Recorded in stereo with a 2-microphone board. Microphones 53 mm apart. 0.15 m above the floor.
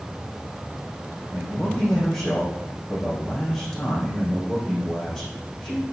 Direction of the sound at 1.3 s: 10° left (ahead or behind).